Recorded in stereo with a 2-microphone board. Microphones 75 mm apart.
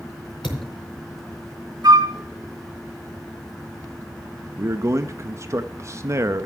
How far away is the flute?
About 1.5 m.